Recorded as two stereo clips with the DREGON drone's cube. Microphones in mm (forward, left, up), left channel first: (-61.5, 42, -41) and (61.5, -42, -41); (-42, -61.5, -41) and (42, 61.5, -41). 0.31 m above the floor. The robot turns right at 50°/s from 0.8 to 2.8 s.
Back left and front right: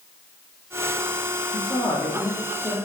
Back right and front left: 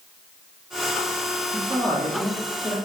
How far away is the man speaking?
About 1.1 m.